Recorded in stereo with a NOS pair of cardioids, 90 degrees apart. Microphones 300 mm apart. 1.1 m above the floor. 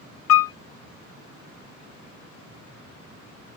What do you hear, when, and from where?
0.3 s a piano: 55° left, 0.5 m